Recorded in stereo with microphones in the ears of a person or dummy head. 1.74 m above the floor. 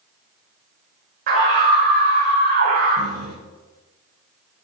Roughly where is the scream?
Right.